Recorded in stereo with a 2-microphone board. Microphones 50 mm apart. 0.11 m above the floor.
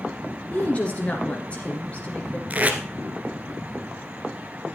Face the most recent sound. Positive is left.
turn(degrees=-30)  # may be behind; listen again after turning